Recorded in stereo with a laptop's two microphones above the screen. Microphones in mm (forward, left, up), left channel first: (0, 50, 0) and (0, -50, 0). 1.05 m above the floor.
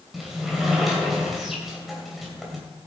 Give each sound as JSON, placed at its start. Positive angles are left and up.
{"t": 0.1, "sound": "a sliding door", "side_deg": -5, "distance_m": 2.5}